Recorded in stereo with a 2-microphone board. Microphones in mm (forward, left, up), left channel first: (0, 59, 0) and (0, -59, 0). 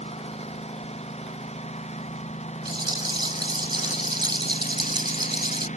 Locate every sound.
0.0 s a lawn mower: 60° left (ahead or behind); by 5.8 s 80° left
2.6 s a rattle: 40° right (ahead or behind)